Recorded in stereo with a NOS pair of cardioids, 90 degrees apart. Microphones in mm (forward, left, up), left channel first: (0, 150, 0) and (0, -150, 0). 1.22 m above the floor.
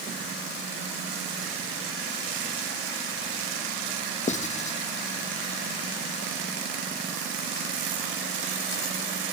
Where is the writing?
25° left, 1.4 m.